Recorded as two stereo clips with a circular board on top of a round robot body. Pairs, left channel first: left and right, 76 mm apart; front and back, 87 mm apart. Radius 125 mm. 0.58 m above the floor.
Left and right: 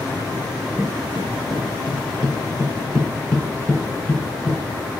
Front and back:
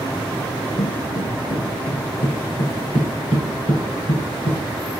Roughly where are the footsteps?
Ahead.